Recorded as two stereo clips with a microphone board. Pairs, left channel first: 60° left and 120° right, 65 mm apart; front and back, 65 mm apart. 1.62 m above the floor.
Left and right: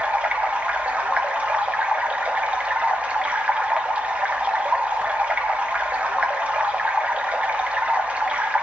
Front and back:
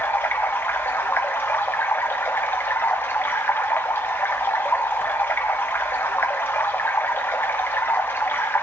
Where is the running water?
55° right, 1.4 m.